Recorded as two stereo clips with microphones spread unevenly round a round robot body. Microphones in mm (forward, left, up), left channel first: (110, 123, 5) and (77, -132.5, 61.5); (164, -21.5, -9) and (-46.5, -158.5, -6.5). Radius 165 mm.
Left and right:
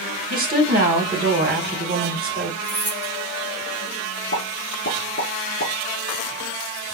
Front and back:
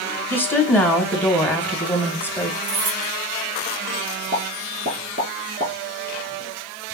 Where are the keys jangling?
175° left, 2.5 m.